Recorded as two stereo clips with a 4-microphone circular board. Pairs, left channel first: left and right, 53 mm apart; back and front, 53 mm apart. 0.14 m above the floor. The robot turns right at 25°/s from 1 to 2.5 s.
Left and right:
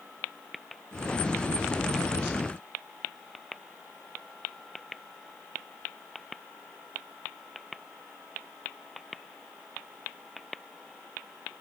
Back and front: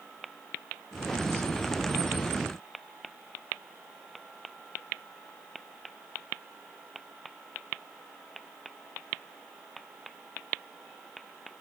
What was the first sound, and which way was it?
Only background noise.